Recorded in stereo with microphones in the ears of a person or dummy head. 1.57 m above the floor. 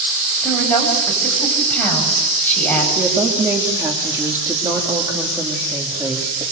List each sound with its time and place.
0.4 s a woman speaking: 10° left (ahead or behind), 9.5 m
3.0 s a woman speaking: 10° right (ahead or behind), 3 m